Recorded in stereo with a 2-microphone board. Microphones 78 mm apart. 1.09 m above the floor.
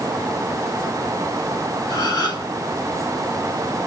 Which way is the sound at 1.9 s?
55° left (ahead or behind).